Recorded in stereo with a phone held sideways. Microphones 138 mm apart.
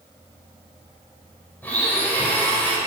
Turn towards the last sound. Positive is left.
turn(degrees=10)  # may be behind; listen again after turning